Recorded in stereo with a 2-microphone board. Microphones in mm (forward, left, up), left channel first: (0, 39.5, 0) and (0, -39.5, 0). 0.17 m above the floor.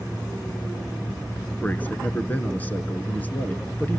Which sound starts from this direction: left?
A man speaking, at 1.6 s.